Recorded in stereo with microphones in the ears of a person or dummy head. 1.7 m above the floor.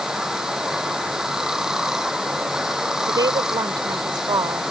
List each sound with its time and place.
0.0 s running water: 5° right (ahead or behind)
3.1 s a woman speaking: 25° right (ahead or behind)